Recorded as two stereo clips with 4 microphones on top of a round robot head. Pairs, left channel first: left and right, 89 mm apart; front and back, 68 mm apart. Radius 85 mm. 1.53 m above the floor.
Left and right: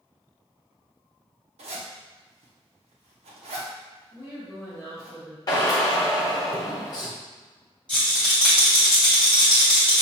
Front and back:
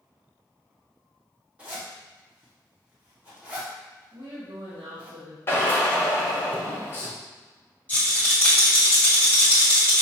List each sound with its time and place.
1.6 s a zipper: 100° right, 0.7 m
4.1 s a woman speaking: 175° right, 1.2 m
5.5 s a drill: 50° left, 0.9 m
7.9 s a rattle: 35° left, 1.3 m